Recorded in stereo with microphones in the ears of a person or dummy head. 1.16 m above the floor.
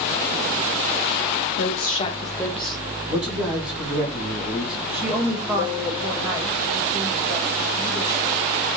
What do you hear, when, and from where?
1.6 s a woman speaking: 60° left (ahead or behind), 0.8 m; by 2.8 s 5° right (ahead or behind), 1.4 m
3.1 s a man speaking: centre (ahead or behind), 3 m
4.9 s a woman speaking: 10° right (ahead or behind), 1.8 m